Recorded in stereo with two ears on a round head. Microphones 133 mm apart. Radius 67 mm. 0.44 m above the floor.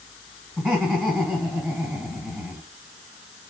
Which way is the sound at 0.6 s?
5° right (ahead or behind).